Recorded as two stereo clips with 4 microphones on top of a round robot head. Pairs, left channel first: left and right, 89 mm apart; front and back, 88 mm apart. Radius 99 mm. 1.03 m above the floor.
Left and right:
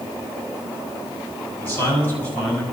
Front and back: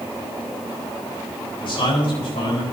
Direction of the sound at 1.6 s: 25° left.